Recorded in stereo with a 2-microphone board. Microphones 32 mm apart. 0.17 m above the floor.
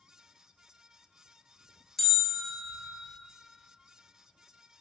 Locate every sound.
2.0 s a bell: 5° left (ahead or behind), 0.9 m